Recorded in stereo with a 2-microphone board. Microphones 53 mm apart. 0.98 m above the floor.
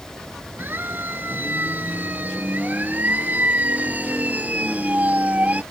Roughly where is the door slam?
No door slam in this recording.